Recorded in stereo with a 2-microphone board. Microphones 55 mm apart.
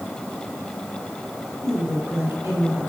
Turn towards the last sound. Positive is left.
turn(degrees=-65)  # may be behind; listen again after turning